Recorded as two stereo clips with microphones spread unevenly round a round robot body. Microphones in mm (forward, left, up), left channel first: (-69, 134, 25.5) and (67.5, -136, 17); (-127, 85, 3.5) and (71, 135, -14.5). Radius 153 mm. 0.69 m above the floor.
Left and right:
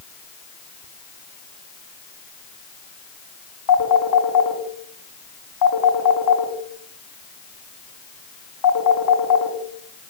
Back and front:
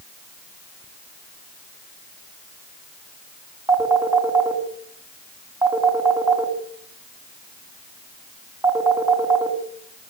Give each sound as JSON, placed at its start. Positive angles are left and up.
{"t": 3.7, "sound": "a phone ringing", "azimuth_deg": 85, "distance_m": 4.0}